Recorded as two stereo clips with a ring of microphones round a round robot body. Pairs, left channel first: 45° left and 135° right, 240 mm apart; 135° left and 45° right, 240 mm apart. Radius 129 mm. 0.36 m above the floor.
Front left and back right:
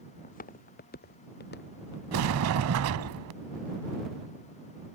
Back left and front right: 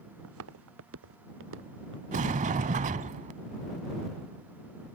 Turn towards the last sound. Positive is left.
turn(degrees=-105)